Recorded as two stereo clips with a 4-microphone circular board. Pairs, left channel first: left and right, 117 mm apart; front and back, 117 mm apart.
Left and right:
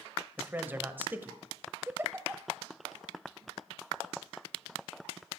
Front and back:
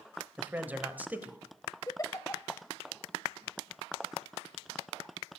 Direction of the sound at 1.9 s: 35° right.